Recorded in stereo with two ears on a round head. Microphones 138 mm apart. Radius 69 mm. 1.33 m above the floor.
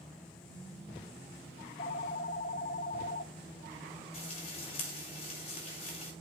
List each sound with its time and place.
1.6 s a phone ringing: 50° left (ahead or behind), 1.0 m
4.1 s frying: 40° left (ahead or behind), 8 m